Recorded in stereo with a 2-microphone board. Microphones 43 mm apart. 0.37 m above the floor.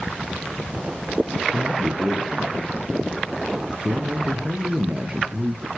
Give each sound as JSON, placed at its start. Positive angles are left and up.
{"t": 1.5, "sound": "a man speaking", "side_deg": -20, "distance_m": 6.5}